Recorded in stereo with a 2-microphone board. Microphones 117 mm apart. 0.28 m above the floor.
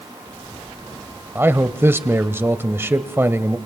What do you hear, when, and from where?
1.4 s a man speaking: 20° right (ahead or behind), 0.9 m